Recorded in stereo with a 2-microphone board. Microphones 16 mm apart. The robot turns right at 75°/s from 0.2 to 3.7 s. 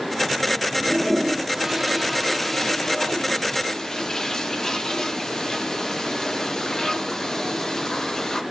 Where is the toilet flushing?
40° right (ahead or behind), 0.6 m; by 8.4 s 35° left (ahead or behind), 0.6 m.